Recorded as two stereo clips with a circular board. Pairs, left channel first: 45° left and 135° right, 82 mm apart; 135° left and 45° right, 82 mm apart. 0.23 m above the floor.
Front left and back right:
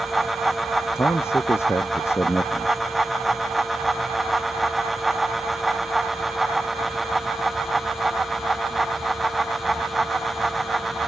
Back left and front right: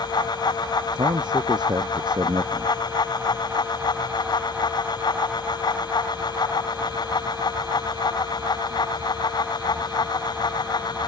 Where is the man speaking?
15° right.